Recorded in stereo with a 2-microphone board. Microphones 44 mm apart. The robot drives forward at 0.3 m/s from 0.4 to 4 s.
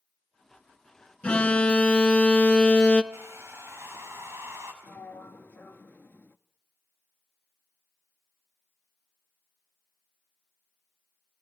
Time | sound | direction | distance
1.2 | an alarm | 25° left (ahead or behind) | 1.0 m
3.1 | a hair dryer | 60° right (ahead or behind) | 5 m
4.8 | a sliding door | 50° left (ahead or behind) | 0.6 m